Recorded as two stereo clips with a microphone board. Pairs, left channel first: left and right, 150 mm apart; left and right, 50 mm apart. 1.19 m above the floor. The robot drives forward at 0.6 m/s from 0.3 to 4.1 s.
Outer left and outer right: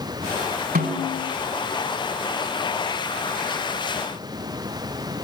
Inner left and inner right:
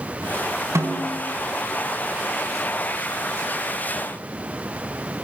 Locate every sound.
0.8 s a snare drum: 85° right, 5.5 m